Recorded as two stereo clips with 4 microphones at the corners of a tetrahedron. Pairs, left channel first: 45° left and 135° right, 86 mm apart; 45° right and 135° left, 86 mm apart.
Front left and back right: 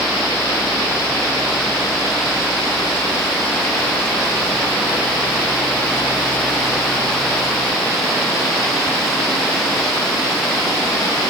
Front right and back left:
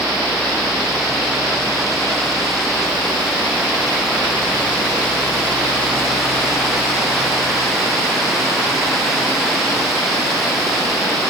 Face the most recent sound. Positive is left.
No sound to turn to.